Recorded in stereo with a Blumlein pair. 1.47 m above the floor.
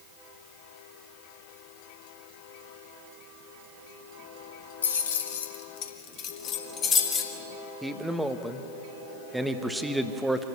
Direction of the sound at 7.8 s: 5° right.